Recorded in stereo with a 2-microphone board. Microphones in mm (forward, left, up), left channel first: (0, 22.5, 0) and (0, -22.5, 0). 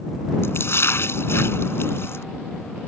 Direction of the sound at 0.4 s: 65° left (ahead or behind).